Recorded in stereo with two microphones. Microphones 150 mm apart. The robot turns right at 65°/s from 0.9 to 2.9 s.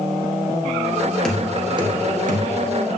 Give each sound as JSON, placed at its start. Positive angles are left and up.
{"t": 1.2, "sound": "knocking", "side_deg": 5, "distance_m": 1.3}